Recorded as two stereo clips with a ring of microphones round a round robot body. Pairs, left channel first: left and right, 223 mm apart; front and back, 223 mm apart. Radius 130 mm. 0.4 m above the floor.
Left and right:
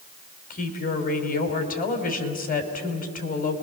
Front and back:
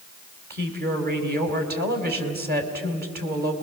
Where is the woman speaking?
140° left, 3.5 m.